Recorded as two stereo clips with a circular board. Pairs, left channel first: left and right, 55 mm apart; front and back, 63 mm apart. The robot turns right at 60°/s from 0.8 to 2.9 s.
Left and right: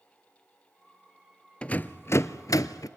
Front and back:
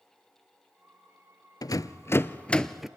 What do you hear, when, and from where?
1.6 s a rattle: 20° left, 0.5 m; by 2.9 s 95° left, 0.5 m